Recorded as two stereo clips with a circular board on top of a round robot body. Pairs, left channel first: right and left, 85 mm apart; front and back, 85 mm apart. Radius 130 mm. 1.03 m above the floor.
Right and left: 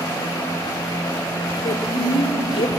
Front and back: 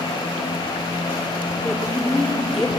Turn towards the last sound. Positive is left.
turn(degrees=-90)